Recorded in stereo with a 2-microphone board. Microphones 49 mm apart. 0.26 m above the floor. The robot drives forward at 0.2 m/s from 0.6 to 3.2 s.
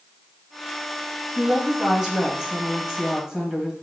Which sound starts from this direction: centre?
A woman speaking, at 1.4 s.